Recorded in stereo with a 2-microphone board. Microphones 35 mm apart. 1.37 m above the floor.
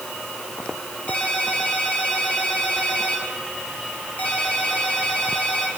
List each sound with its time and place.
1.1 s a ringtone: 55° left (ahead or behind), 8.5 m